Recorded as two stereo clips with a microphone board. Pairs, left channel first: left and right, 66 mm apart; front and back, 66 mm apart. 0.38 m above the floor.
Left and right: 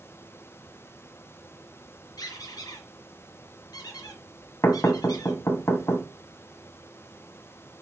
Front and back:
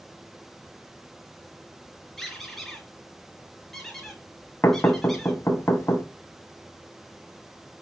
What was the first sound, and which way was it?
A squeak, 85° left.